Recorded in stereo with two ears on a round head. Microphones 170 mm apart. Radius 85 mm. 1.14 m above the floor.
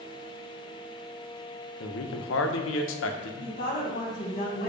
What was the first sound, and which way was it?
A man speaking, 70° left (ahead or behind).